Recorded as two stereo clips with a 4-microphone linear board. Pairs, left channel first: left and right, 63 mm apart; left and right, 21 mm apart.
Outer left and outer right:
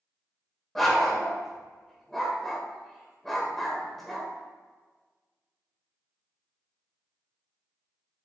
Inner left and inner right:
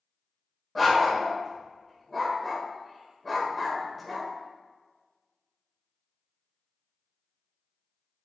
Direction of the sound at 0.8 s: 5° left (ahead or behind).